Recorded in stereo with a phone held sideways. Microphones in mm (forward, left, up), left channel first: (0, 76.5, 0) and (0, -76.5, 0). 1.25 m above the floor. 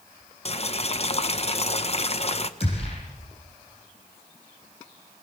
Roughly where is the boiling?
Left.